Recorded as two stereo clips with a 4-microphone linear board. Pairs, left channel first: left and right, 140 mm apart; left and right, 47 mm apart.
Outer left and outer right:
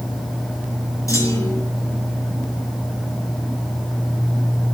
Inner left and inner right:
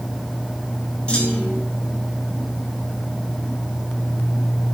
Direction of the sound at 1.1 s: 20° left (ahead or behind).